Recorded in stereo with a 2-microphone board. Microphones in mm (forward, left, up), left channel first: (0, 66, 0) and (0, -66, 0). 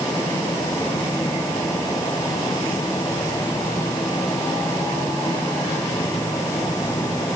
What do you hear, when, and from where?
Only background noise.